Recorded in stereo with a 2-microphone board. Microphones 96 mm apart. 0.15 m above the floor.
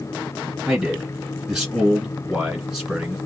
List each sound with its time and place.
0.7 s a man speaking: 5° right (ahead or behind), 1.9 m